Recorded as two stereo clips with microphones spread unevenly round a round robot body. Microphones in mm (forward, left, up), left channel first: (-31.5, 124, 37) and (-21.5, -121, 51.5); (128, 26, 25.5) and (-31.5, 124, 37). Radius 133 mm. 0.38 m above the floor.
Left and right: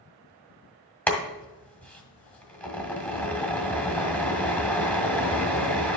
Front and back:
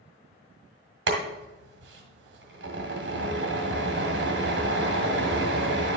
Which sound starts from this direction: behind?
Boiling, at 1.1 s.